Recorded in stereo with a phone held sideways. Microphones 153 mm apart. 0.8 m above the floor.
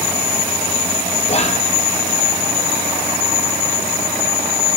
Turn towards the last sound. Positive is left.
turn(degrees=45)  # may be behind; listen again after turning